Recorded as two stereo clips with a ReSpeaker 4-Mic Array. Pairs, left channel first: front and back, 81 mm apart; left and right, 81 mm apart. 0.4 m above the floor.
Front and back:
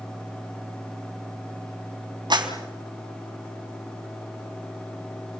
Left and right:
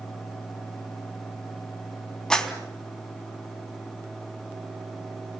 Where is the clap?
170° left, 3.5 m.